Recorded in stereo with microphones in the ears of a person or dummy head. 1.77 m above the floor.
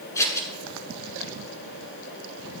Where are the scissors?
20° left (ahead or behind), 8 m.